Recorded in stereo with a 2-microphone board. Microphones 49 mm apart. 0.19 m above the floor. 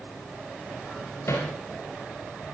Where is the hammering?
60° left (ahead or behind), 7.5 m.